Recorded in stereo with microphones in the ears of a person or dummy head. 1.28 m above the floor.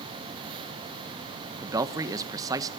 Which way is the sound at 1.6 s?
15° right (ahead or behind).